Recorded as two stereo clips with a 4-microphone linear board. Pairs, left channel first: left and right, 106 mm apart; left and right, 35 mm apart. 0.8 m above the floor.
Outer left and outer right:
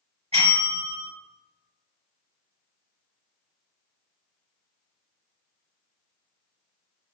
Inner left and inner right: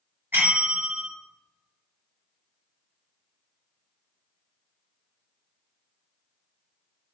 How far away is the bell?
About 1.6 m.